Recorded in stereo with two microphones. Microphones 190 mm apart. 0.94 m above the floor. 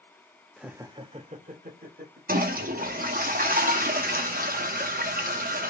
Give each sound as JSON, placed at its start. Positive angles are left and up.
{"t": 0.6, "sound": "laughter", "side_deg": 0, "distance_m": 0.6}
{"t": 2.3, "sound": "a toilet flushing", "side_deg": -50, "distance_m": 0.7}